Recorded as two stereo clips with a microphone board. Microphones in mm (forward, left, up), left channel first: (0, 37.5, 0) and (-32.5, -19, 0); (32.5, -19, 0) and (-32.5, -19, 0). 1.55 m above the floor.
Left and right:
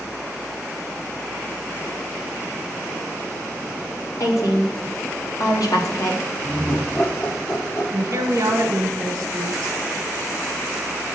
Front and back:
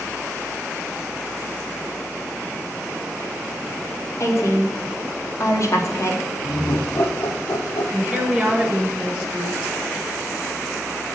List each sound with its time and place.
4.2 s a woman speaking: 40° left, 1.3 m
6.4 s laughter: 15° left, 0.9 m
7.9 s a woman speaking: 105° right, 1.0 m